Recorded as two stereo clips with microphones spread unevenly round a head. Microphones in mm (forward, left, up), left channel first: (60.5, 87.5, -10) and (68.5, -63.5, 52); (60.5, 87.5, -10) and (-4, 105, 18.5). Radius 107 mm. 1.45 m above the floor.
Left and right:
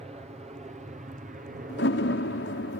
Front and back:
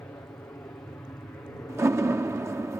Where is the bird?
I don't hear a bird.